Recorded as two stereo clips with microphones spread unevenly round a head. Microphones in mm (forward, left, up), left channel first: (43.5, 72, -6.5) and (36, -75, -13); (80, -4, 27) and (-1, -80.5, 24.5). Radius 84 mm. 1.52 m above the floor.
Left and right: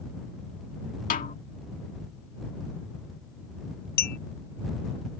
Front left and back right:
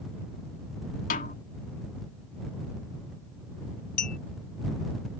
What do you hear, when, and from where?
1.1 s a snare drum: 55° left
4.0 s a clink: 75° left